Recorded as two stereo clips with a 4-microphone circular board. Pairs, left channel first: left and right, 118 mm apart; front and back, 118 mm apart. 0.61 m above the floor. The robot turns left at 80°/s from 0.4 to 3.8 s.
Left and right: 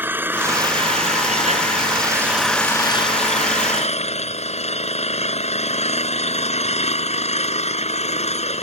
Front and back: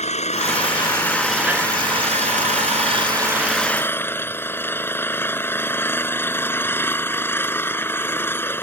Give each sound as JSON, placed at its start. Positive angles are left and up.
{"t": 0.0, "sound": "an engine running", "azimuth_deg": -15}